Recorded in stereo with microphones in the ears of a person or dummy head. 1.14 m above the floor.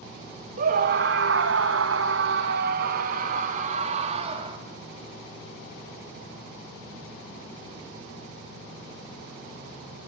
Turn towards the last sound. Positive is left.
turn(degrees=-35)  # may be behind; listen again after turning